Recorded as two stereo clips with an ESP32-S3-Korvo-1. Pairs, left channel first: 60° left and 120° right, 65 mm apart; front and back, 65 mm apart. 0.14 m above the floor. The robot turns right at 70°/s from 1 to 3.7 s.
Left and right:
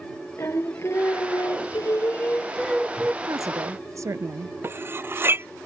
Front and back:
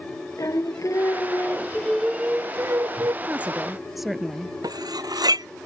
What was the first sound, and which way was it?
Singing, 20° left.